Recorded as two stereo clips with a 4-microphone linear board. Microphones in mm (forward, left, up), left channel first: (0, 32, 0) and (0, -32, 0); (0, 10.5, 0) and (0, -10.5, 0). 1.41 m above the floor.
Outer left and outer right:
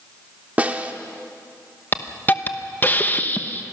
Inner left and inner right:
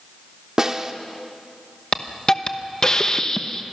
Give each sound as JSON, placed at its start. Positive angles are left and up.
{"t": 0.6, "sound": "a snare drum", "side_deg": -25, "distance_m": 1.0}
{"t": 1.9, "sound": "a hiss", "side_deg": 30, "distance_m": 1.0}